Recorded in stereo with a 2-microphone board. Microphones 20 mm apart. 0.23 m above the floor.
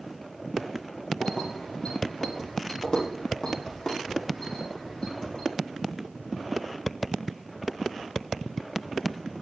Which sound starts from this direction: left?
Keys jangling, at 1.2 s.